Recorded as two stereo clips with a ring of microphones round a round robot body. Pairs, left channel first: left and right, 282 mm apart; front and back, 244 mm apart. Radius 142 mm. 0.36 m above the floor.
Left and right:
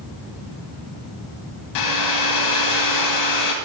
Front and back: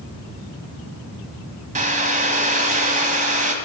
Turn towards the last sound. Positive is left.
turn(degrees=120)